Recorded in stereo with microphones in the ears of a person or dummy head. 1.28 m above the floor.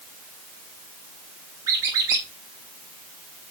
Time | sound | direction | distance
1.7 | a squeak | 20° right (ahead or behind) | 0.7 m